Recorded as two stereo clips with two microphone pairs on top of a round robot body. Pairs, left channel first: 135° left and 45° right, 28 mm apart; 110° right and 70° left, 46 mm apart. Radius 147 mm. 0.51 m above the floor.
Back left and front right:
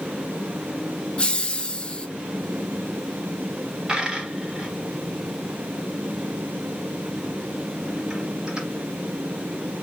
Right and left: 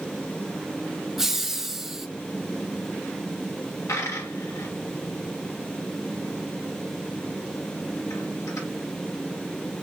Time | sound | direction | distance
1.2 | laughter | 125° left | 0.9 m
3.9 | a dropped coin | 100° right | 0.9 m